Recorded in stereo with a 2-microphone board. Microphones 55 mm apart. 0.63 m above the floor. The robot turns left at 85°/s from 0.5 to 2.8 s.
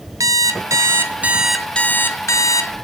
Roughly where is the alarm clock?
Right.